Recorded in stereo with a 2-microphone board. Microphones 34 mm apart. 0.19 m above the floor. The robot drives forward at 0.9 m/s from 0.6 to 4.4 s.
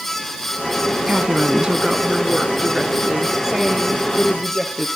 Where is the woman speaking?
35° right (ahead or behind), 1.2 m; by 4.8 s 10° right (ahead or behind), 3.5 m.